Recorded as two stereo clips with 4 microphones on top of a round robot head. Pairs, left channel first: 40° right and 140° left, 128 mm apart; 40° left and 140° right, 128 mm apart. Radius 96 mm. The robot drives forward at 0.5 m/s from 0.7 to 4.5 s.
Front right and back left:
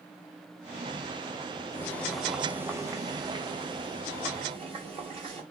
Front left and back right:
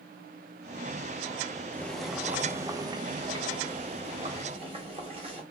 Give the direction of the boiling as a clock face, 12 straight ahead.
1 o'clock.